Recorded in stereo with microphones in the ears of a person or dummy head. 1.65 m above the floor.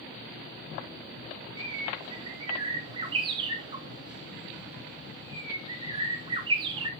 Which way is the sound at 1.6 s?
30° right (ahead or behind).